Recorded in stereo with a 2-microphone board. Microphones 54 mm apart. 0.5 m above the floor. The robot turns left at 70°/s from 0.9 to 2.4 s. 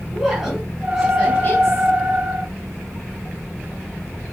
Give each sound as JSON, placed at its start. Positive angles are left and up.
{"t": 0.1, "sound": "a woman speaking", "azimuth_deg": -175, "distance_m": 4.0}